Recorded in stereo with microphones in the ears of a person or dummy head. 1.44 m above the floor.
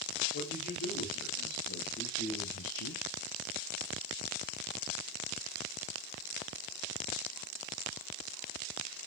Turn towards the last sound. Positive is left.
turn(degrees=55)  # may be behind; listen again after turning